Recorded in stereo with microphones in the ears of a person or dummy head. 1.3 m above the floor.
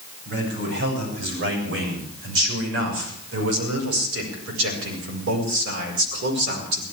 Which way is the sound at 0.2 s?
60° right (ahead or behind).